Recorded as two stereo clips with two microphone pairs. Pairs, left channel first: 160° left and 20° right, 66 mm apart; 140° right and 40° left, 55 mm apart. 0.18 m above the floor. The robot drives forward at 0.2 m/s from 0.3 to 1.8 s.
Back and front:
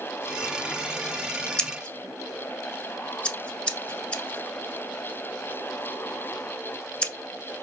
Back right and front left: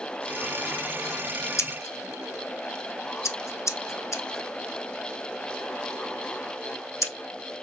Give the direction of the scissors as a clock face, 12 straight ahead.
4 o'clock.